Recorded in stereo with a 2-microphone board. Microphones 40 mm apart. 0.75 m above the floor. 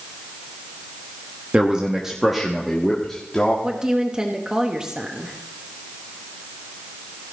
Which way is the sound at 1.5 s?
25° right (ahead or behind).